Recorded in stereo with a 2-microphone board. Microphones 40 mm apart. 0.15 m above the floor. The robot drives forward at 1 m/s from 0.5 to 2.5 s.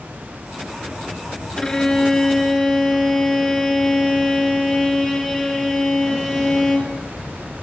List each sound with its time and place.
1.6 s a violin: 15° left (ahead or behind), 1.3 m; by 7.0 s 10° left (ahead or behind), 2 m